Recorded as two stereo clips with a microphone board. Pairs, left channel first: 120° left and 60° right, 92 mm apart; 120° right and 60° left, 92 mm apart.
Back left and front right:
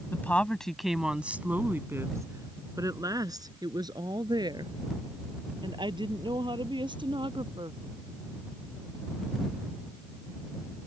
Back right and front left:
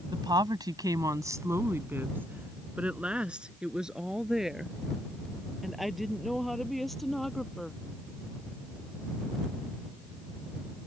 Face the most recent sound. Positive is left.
turn(degrees=-30)